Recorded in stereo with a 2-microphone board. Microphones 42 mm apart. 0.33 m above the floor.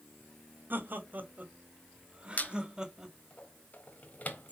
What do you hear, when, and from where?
0.7 s laughter: 50° right (ahead or behind), 2.0 m; by 3.1 s 10° right (ahead or behind), 1.9 m
2.4 s a squeak: 40° left (ahead or behind), 1.3 m